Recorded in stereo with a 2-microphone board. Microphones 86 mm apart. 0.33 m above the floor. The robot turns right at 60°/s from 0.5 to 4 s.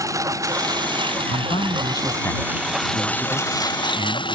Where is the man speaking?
90° left; by 4.3 s 110° right.